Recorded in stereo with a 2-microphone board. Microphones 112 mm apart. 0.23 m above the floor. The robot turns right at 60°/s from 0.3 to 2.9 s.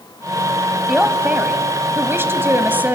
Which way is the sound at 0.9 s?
5° right (ahead or behind).